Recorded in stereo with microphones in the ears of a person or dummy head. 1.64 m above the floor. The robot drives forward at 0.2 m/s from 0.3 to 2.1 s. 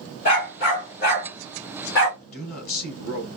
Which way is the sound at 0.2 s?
50° left (ahead or behind).